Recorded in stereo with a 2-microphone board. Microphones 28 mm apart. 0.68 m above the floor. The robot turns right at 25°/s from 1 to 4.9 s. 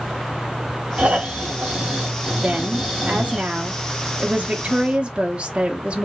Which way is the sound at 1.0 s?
60° right.